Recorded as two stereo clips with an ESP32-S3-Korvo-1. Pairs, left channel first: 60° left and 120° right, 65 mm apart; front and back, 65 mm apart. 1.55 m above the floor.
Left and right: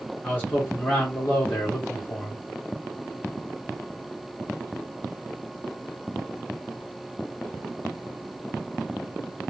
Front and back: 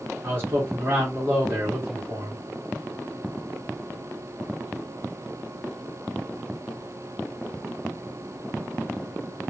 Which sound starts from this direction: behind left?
A man speaking, at 0.2 s.